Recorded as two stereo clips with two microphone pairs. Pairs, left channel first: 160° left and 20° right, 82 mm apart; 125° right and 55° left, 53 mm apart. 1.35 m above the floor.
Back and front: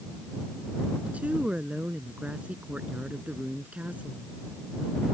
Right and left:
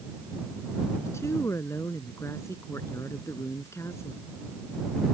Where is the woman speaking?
95° right.